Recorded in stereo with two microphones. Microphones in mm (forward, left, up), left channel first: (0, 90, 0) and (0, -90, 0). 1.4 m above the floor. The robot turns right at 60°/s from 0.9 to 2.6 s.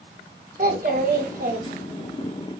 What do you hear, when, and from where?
0.6 s a child speaking: 105° right, 0.9 m; by 2.3 s 25° right, 0.9 m